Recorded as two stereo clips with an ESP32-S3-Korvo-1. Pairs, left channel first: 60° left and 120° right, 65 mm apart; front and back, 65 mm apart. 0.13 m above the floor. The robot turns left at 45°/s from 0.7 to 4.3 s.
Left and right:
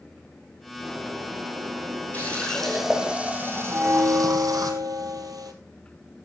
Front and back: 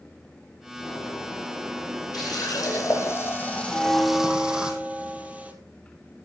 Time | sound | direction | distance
0.8 | a bird | 35° right | 7 m
2.1 | a running tap | 5° right | 3 m
3.7 | a bell | 85° right | 1.9 m